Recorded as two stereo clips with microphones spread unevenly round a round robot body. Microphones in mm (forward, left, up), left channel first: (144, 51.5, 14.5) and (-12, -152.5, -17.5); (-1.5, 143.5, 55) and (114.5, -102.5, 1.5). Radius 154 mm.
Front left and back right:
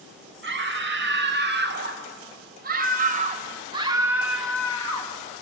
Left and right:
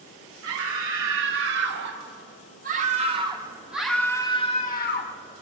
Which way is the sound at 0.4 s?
90° right.